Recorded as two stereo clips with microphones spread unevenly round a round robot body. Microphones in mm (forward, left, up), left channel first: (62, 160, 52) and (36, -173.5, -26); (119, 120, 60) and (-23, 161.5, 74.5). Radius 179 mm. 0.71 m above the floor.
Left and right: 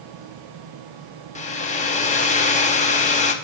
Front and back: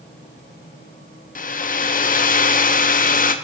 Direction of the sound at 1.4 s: 10° left.